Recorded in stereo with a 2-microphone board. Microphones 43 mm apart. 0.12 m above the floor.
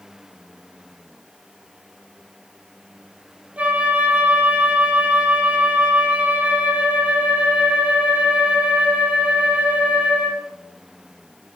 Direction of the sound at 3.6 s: 35° right (ahead or behind).